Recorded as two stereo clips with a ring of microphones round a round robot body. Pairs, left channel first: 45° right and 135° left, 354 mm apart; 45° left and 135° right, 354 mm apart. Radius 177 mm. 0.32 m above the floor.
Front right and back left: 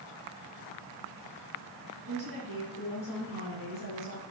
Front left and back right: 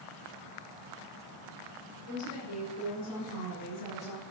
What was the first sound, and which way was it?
A woman speaking, 30° left.